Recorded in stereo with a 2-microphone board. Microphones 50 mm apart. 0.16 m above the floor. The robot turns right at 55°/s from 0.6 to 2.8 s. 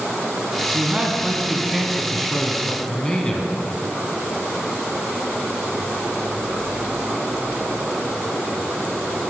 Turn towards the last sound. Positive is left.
turn(degrees=15)  # may be behind; listen again after turning